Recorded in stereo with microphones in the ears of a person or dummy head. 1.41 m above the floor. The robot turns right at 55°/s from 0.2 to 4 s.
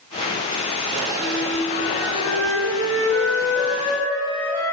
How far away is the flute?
About 5.5 m.